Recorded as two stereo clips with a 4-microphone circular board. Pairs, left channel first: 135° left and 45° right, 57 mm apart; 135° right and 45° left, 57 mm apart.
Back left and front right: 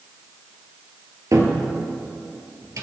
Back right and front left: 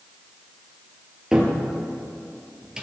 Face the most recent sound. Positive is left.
turn(degrees=-35)